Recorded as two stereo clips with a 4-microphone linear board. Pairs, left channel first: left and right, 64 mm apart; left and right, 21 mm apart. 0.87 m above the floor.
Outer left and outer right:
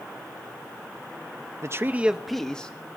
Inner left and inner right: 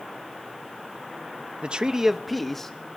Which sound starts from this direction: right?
A man speaking, at 1.6 s.